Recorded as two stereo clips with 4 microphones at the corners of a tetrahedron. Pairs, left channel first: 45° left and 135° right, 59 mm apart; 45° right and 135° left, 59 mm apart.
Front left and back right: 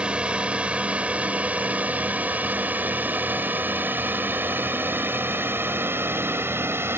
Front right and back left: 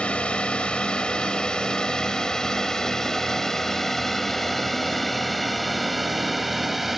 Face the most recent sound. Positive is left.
turn(degrees=-140)